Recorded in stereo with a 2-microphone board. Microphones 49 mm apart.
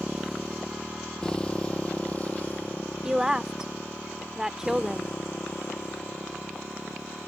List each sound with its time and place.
0.0 s a motorcycle: 5° right (ahead or behind); by 7.3 s 55° left (ahead or behind)
3.0 s a woman speaking: 10° right (ahead or behind)